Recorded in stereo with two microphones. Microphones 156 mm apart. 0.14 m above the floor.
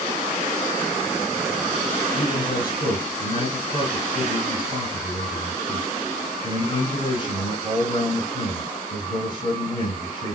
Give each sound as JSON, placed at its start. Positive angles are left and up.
{"t": 2.1, "sound": "a man speaking", "side_deg": 30, "distance_m": 2.5}